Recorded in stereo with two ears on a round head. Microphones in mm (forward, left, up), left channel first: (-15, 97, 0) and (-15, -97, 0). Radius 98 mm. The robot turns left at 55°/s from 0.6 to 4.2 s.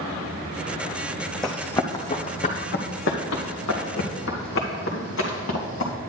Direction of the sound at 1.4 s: Centre (ahead or behind).